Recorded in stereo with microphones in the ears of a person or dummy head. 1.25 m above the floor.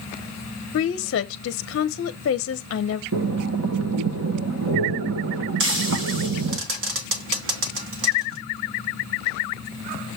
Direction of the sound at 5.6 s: 60° right (ahead or behind).